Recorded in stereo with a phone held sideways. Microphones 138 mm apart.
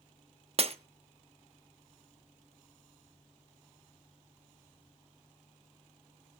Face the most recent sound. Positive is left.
turn(degrees=-45)  # may be behind; listen again after turning